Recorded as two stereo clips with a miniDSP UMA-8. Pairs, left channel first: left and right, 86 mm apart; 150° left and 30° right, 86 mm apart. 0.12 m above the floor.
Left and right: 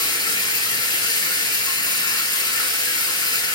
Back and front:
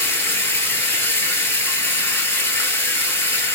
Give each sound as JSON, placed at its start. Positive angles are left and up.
{"t": 0.0, "sound": "running water", "azimuth_deg": 95, "distance_m": 0.8}